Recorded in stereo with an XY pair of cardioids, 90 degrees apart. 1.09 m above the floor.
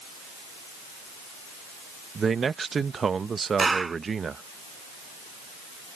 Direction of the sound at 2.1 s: 45° right.